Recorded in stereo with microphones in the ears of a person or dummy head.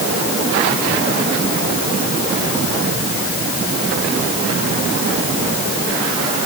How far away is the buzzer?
I don't hear a buzzer.